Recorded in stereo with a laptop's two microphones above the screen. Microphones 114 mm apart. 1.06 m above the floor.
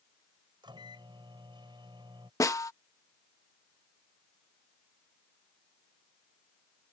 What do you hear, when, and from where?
0.6 s a microwave: 40° right (ahead or behind)
2.4 s a snare drum: 30° left (ahead or behind)